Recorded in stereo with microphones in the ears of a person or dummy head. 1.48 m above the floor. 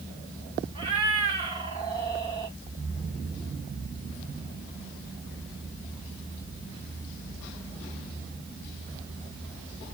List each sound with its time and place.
0.8 s a cat meowing: 30° right (ahead or behind), 1.8 m